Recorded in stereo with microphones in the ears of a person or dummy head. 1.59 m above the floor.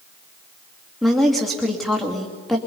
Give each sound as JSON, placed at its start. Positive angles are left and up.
{"t": 1.0, "sound": "a woman speaking", "side_deg": -5, "distance_m": 2.5}